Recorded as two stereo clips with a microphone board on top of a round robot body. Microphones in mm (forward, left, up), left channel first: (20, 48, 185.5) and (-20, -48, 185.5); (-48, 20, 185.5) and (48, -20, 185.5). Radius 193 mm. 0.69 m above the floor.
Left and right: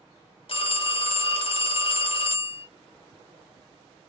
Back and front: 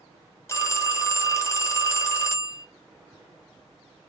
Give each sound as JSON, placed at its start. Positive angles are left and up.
{"t": 0.5, "sound": "a phone ringing", "azimuth_deg": 95, "distance_m": 1.0}